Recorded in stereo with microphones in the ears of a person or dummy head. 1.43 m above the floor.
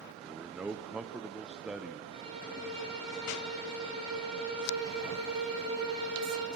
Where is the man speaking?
5° right (ahead or behind), 0.6 m.